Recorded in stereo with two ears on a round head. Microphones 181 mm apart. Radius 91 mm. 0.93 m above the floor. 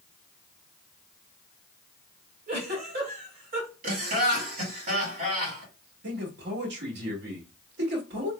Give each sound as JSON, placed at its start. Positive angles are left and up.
{"t": 2.5, "sound": "a giggle", "side_deg": -45, "distance_m": 2.0}
{"t": 3.8, "sound": "laughter", "side_deg": -40, "distance_m": 2.0}
{"t": 6.0, "sound": "a man speaking", "side_deg": -55, "distance_m": 1.8}